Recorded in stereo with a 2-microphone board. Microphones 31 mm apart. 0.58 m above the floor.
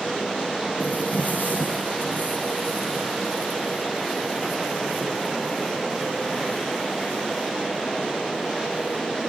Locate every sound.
0.8 s footsteps: 60° left (ahead or behind), 1.9 m; by 9.0 s 80° left, 7 m